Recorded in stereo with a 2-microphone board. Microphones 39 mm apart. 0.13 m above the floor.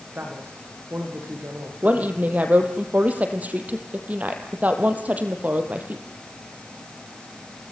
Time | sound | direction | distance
0.1 | a man speaking | 60° right (ahead or behind) | 7 m
1.8 | a woman speaking | 40° right (ahead or behind) | 3.5 m